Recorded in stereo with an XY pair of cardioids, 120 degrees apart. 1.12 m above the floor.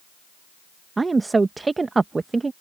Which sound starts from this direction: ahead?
A woman speaking, at 1.0 s.